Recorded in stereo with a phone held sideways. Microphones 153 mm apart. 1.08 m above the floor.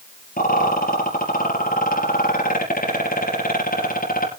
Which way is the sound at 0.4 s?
65° left (ahead or behind).